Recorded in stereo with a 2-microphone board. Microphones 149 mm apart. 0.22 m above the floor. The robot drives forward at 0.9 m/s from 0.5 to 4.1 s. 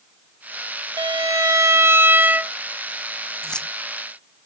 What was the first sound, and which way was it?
A violin, 30° right (ahead or behind).